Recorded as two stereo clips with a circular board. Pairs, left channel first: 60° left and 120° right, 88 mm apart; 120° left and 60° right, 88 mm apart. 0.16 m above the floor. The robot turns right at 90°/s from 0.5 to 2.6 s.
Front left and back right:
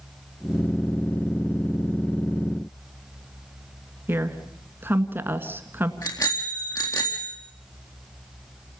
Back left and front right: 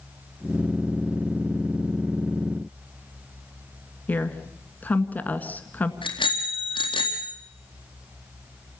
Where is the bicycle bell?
110° left, 4 m.